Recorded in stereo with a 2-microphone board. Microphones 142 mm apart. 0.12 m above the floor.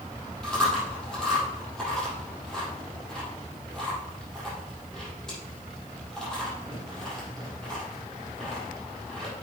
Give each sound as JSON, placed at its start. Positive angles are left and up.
{"t": 0.4, "sound": "chewing", "side_deg": 5, "distance_m": 5.0}